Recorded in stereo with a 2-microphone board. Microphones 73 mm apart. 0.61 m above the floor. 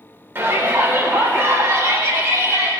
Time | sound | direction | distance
0.3 | a shout | 30° right (ahead or behind) | 2.5 m